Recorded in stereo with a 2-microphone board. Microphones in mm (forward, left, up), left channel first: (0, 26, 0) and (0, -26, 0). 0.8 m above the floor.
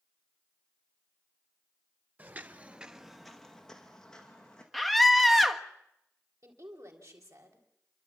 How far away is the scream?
About 1.2 m.